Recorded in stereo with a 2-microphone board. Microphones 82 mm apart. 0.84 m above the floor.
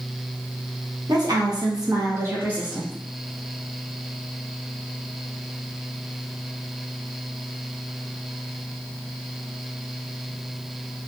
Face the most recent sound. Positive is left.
turn(degrees=-5)  # may be behind; listen again after turning